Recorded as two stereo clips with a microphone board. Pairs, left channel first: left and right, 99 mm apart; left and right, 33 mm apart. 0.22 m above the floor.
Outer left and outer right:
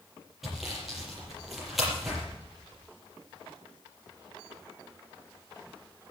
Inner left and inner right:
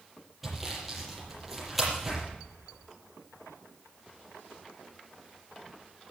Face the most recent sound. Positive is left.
turn(degrees=0)  # may be behind; listen again after turning